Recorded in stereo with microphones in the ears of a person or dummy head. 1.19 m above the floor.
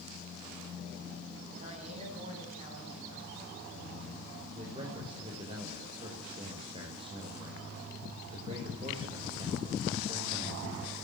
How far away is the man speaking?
About 5 m.